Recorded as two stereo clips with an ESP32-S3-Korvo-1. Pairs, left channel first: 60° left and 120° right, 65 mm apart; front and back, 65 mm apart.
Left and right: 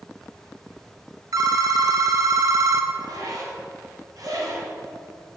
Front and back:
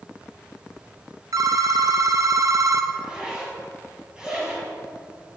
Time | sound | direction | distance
1.3 | a phone ringing | 150° right | 0.8 m
2.9 | a zipper | 105° right | 3 m